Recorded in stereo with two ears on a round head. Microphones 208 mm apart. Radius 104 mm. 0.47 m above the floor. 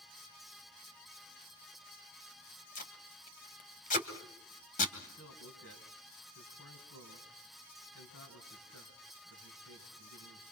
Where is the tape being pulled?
35° left (ahead or behind), 2.5 m.